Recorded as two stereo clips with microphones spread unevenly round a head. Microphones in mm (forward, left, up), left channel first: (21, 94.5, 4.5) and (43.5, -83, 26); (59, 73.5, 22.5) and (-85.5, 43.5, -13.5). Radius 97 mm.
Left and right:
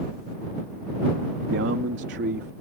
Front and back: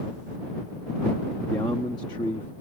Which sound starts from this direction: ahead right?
A man speaking, at 1.5 s.